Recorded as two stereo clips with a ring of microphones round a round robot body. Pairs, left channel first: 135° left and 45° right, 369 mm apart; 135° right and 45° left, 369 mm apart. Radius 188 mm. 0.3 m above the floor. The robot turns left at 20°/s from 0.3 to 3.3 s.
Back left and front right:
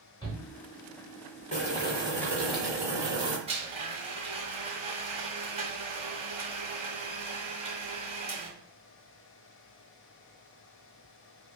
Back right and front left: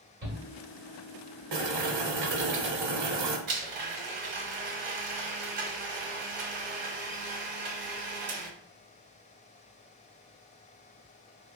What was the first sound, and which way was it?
A shout, 65° left.